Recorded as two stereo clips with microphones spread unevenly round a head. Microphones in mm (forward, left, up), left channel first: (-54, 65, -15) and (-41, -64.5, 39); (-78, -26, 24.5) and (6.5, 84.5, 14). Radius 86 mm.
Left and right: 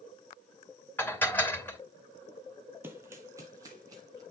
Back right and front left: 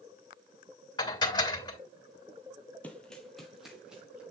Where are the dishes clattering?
170° left, 2.5 m.